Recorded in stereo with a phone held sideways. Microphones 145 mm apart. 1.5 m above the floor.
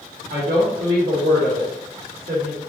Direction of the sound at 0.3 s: 80° right.